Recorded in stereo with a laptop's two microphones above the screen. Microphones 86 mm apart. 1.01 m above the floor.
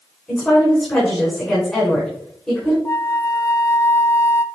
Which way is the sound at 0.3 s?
10° left (ahead or behind).